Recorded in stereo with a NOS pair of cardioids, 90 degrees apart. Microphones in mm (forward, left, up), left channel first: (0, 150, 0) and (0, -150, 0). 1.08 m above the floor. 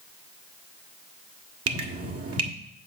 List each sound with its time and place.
1.7 s dripping: 50° right, 1.6 m